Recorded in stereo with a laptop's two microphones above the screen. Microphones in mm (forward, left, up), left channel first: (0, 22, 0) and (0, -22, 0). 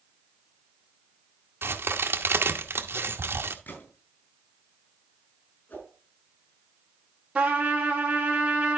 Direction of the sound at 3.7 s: 50° left (ahead or behind).